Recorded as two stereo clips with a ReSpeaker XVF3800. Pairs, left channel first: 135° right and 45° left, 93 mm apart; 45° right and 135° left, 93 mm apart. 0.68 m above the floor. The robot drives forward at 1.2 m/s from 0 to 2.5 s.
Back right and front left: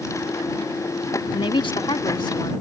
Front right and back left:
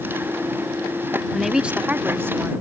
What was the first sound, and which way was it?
A woman speaking, 130° right.